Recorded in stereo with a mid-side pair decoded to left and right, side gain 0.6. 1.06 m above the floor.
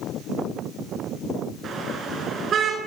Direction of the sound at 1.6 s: 45° right.